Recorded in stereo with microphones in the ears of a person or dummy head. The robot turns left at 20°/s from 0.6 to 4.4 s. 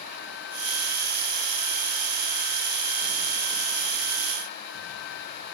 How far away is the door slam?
No door slam in this recording.